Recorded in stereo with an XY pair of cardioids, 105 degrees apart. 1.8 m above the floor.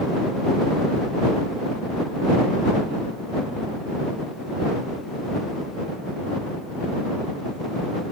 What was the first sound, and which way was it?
Only background noise.